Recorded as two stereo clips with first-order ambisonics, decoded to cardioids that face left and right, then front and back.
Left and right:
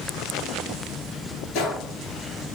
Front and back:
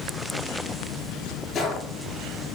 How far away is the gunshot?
About 4 m.